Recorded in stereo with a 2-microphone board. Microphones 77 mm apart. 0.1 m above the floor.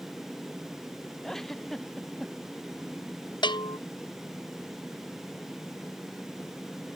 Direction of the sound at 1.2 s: 5° left (ahead or behind).